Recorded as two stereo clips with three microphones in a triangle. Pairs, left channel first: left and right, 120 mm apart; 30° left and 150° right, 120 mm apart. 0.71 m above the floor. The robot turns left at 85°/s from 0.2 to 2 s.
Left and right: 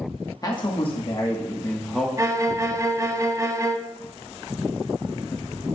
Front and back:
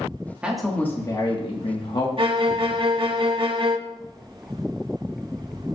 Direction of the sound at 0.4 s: 135° left.